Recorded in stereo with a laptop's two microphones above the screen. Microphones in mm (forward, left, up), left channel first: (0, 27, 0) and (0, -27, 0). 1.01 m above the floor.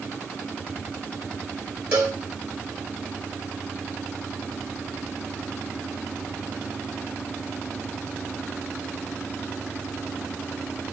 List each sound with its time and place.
1.9 s a cowbell: 25° right (ahead or behind), 1.9 m